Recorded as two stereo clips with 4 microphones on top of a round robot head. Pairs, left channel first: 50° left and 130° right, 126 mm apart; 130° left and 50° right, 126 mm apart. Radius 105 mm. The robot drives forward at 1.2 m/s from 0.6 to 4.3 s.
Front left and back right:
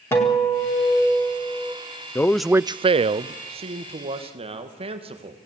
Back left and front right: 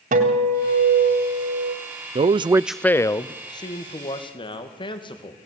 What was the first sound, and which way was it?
A guitar, 25° right.